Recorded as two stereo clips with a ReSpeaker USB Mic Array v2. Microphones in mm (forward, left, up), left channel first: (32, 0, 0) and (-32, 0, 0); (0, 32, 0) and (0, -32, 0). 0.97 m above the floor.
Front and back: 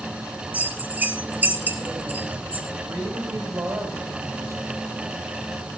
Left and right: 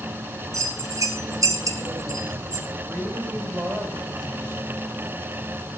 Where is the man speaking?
140° right, 5.5 m.